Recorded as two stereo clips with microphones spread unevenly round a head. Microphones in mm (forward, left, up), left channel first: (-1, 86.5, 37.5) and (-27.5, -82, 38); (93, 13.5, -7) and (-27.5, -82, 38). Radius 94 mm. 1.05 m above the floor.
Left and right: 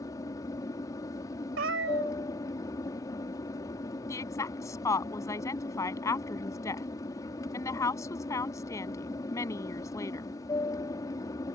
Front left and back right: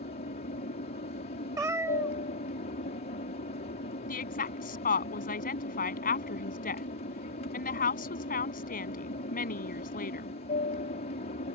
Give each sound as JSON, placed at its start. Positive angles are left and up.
{"t": 0.0, "sound": "an aircraft", "azimuth_deg": 10}
{"t": 1.6, "sound": "a cat meowing", "azimuth_deg": -80}
{"t": 4.1, "sound": "a woman speaking", "azimuth_deg": 5}